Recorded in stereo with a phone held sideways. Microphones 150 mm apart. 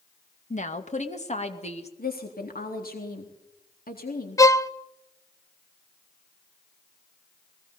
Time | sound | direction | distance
0.5 | a woman speaking | 55° left (ahead or behind) | 2 m
2.0 | a woman speaking | 85° left | 4 m
4.4 | a violin | 20° left (ahead or behind) | 0.7 m